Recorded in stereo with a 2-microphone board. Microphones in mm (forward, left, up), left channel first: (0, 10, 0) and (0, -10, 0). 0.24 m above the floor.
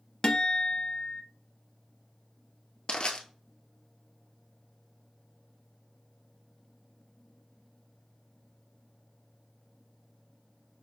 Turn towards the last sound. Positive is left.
turn(degrees=60)  # may be behind; listen again after turning